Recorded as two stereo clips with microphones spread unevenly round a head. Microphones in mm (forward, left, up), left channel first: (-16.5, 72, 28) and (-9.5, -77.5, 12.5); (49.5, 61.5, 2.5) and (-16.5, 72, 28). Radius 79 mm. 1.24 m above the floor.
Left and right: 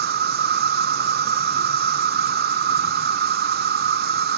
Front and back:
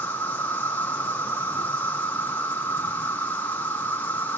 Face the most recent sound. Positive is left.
turn(degrees=-80)